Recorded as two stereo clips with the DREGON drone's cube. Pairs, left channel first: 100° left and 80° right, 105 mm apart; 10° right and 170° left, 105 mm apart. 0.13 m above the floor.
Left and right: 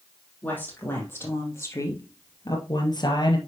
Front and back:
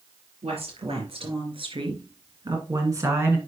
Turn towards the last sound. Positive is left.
turn(degrees=105)